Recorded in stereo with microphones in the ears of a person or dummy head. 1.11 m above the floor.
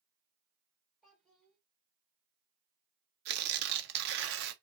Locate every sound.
1.0 s a child speaking: centre (ahead or behind), 1.7 m
3.2 s tearing paper: 55° right (ahead or behind), 0.6 m